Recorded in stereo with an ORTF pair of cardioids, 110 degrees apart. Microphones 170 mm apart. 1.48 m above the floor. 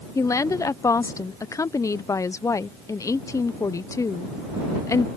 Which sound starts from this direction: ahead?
A woman speaking, at 0.1 s.